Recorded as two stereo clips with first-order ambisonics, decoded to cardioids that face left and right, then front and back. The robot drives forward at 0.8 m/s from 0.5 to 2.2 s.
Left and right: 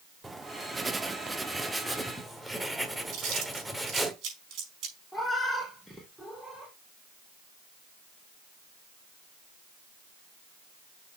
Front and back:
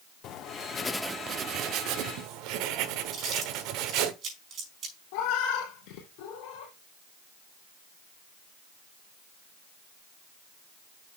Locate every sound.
0.2 s writing: 10° right, 0.6 m; by 4.1 s 175° right, 1.1 m
3.1 s chewing: 125° right, 5 m
5.1 s a cat meowing: 5° right, 2 m